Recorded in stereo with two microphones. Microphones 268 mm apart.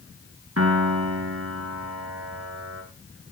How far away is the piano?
About 2.5 m.